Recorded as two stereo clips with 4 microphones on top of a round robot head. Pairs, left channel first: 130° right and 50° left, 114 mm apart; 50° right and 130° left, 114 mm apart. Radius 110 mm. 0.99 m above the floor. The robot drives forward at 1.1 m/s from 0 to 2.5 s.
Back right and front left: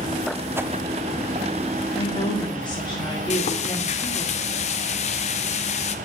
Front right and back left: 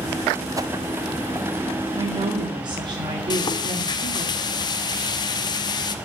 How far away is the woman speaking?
About 1.8 m.